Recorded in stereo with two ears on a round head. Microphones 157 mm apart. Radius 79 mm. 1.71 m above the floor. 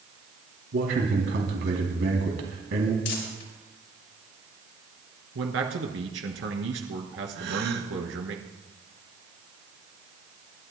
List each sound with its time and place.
0.7 s a man speaking: 70° right (ahead or behind), 3 m
3.0 s crumpling: 70° left (ahead or behind), 4 m
5.3 s a man speaking: 75° right (ahead or behind), 2.5 m
7.3 s a gasp: 60° right (ahead or behind), 1.6 m